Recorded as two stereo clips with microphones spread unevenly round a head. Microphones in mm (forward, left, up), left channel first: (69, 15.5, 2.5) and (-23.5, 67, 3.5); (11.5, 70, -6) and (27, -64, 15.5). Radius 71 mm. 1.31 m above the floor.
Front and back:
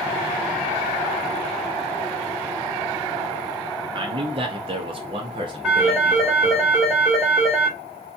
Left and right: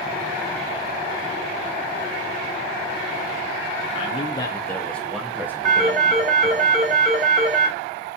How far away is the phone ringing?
About 1.9 m.